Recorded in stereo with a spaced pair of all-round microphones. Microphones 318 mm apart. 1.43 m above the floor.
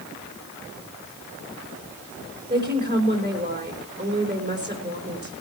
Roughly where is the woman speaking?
Right.